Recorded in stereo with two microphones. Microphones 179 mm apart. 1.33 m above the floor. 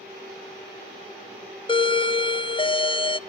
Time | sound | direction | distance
1.7 | a doorbell | 30° left (ahead or behind) | 0.6 m